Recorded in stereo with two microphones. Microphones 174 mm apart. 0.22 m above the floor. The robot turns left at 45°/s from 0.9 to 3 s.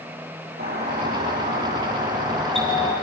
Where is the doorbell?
75° right, 7.5 m; by 2.9 s 165° right, 7.5 m.